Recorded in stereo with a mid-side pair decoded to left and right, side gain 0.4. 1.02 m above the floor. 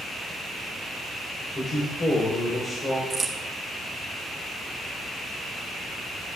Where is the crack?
30° right, 1.9 m.